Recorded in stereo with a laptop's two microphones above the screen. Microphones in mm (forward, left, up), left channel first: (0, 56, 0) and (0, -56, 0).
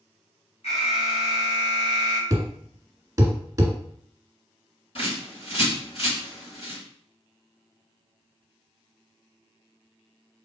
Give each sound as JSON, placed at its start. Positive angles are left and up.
{"t": 0.6, "sound": "an alarm", "side_deg": 75, "distance_m": 1.7}
{"t": 2.3, "sound": "a thud", "side_deg": -30, "distance_m": 1.3}
{"t": 5.0, "sound": "a bird", "side_deg": 60, "distance_m": 2.5}